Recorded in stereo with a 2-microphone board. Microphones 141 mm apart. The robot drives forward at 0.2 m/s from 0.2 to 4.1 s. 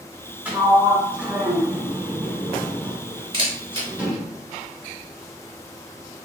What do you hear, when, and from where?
0.5 s a sliding door: 10° right (ahead or behind), 0.8 m
3.3 s a camera shutter: 35° right (ahead or behind), 1.2 m